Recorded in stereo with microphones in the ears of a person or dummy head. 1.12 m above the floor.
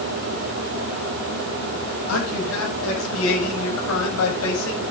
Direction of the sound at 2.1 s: 85° left.